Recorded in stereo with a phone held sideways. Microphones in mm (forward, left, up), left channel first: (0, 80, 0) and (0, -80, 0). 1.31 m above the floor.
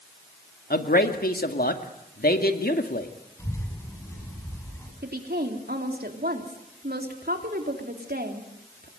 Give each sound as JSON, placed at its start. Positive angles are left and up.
{"t": 0.7, "sound": "a man speaking", "side_deg": 70, "distance_m": 2.0}
{"t": 3.4, "sound": "a child speaking", "side_deg": 15, "distance_m": 8.5}
{"t": 5.0, "sound": "a woman speaking", "side_deg": -75, "distance_m": 3.5}